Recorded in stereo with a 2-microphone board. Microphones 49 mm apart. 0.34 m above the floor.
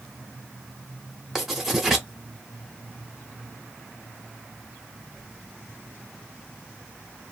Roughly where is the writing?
Centre.